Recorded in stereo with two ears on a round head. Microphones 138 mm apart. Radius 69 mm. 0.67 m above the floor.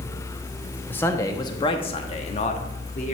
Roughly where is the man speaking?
Centre.